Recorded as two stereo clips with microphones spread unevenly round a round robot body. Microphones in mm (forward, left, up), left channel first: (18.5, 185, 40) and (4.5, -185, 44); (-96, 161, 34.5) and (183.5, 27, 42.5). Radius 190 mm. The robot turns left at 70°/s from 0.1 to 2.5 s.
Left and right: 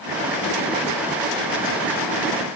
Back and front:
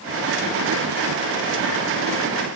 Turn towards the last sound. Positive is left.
No sound to turn to.